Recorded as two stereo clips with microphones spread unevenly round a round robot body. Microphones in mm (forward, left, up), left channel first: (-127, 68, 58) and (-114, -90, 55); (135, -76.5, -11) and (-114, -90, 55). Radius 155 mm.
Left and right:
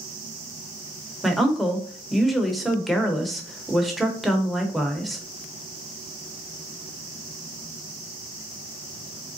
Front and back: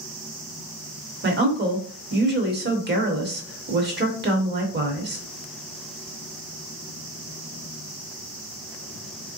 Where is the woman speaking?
175° right, 1.0 m.